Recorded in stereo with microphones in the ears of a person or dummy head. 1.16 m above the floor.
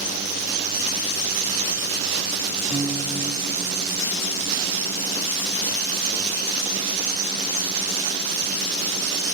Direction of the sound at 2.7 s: 5° left (ahead or behind).